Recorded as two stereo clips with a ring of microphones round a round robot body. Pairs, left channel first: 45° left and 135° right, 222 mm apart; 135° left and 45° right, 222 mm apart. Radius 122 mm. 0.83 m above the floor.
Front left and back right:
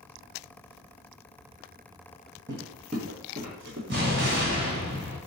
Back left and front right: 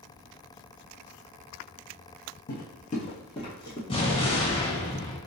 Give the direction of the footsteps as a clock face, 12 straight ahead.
7 o'clock.